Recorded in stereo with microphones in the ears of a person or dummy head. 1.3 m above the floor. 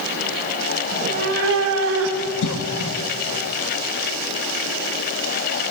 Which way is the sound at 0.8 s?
25° right (ahead or behind).